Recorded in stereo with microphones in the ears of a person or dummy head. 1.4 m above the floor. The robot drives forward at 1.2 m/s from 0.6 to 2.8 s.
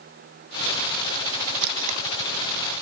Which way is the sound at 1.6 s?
60° right (ahead or behind).